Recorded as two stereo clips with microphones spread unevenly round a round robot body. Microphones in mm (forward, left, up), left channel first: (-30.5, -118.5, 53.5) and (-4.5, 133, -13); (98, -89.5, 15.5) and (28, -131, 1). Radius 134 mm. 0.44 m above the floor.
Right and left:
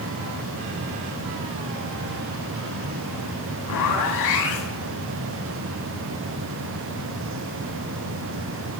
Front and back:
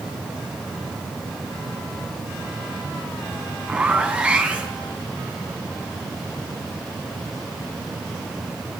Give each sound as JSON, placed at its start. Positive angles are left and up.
{"t": 3.7, "sound": "a zipper", "azimuth_deg": -75, "distance_m": 3.0}